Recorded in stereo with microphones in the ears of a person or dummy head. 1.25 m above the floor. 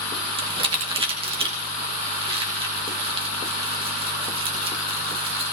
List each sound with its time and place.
0.4 s crumpling: 35° right (ahead or behind), 1.9 m